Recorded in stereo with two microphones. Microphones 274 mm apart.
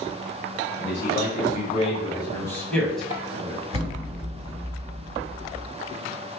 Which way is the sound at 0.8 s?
45° left (ahead or behind).